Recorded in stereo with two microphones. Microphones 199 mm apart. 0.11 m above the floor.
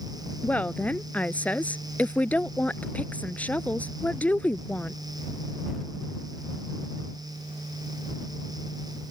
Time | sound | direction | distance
0.4 | a woman speaking | 10° left (ahead or behind) | ?